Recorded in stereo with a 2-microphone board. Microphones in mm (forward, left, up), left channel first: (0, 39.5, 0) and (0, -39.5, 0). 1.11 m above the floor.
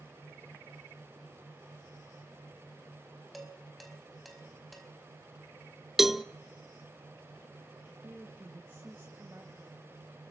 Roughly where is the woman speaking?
Right.